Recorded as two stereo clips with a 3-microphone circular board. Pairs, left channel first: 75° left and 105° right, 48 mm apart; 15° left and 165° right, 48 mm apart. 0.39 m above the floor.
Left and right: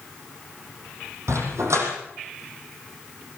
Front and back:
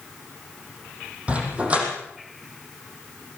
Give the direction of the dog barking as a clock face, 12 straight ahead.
3 o'clock.